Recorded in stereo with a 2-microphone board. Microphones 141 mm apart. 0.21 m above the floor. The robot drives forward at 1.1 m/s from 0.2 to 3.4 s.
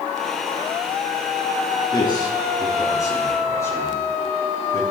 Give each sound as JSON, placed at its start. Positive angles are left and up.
{"t": 1.9, "sound": "a man speaking", "side_deg": 30, "distance_m": 3.0}